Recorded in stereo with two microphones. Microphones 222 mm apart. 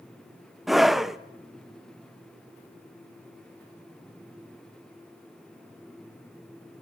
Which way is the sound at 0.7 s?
Centre (ahead or behind).